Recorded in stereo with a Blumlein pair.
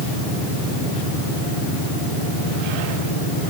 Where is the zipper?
No zipper in this recording.